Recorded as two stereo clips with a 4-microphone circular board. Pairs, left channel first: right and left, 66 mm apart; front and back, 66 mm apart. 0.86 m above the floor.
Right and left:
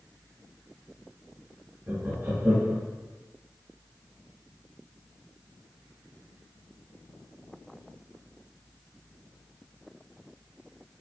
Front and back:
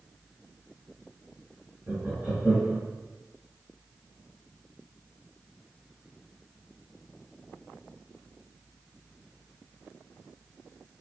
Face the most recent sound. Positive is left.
turn(degrees=130)